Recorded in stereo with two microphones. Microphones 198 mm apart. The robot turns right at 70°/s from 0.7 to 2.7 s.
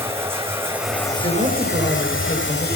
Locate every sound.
0.0 s running water: 10° right, 1.6 m; by 2.8 s 130° left, 1.6 m
1.2 s a woman speaking: 75° right, 2.5 m; by 2.7 s 30° left, 2.5 m